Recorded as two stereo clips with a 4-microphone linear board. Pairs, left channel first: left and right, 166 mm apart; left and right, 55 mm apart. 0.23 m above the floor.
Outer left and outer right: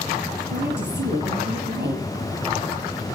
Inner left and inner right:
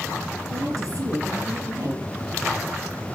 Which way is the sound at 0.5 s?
70° right (ahead or behind).